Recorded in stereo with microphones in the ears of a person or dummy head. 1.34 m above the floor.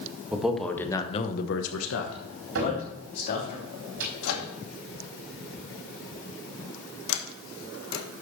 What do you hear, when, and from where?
0.3 s a man speaking: 5° right (ahead or behind), 1.9 m; by 3.5 s 55° left (ahead or behind), 3.5 m
2.5 s a cupboard door: 75° right (ahead or behind), 4 m
4.2 s a microwave: 80° left, 2 m
7.1 s a sliding door: 75° left (ahead or behind), 1.5 m